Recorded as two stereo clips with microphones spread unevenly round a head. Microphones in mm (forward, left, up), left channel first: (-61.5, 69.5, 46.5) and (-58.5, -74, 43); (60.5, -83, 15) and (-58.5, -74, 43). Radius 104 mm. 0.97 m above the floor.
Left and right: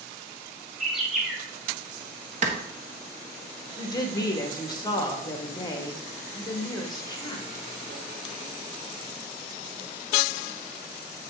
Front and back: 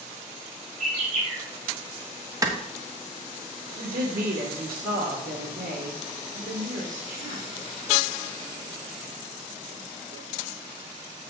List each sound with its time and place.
0.8 s a bird: 175° right, 4 m
2.4 s a clap: 120° right, 1.6 m
3.8 s a woman speaking: 155° left, 1.9 m